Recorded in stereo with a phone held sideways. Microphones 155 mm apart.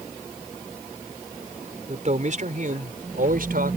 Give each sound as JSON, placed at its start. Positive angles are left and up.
{"t": 1.9, "sound": "a man speaking", "side_deg": -50}